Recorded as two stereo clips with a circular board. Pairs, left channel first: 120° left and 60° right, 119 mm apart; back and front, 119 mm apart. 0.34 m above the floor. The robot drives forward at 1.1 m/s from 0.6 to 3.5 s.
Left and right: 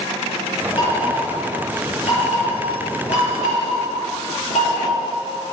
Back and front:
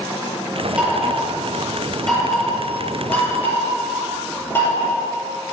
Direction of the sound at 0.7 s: 80° left.